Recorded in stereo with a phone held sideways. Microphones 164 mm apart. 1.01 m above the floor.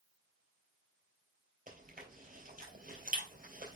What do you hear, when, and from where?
1.7 s chewing: 60° right (ahead or behind), 3 m